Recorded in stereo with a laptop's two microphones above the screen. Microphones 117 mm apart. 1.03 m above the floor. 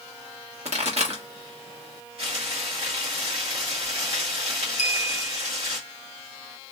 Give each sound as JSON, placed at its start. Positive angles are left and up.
{"t": 0.7, "sound": "a pop", "side_deg": -65, "distance_m": 1.5}
{"t": 2.2, "sound": "frying", "side_deg": -55, "distance_m": 1.7}
{"t": 4.8, "sound": "a clink", "side_deg": 75, "distance_m": 0.6}